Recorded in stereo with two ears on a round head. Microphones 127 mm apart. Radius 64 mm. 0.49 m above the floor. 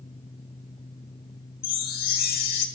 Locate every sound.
1.6 s a chime: 65° left (ahead or behind), 1.8 m